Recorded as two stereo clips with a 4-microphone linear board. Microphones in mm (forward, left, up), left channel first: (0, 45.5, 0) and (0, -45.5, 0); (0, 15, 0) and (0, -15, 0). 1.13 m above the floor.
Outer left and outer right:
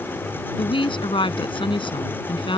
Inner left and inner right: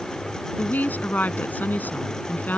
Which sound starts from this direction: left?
A woman speaking, at 0.6 s.